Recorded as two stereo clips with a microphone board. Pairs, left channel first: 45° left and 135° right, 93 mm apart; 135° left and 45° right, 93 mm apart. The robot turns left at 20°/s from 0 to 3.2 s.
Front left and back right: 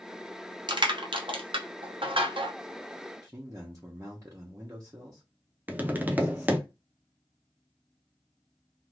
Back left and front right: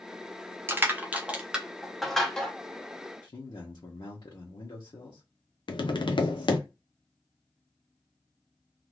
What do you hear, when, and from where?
0.7 s crushing: 110° right, 0.7 m; by 2.5 s 145° right, 0.7 m
3.2 s a man speaking: 170° left, 0.9 m
5.7 s tapping: 155° left, 0.5 m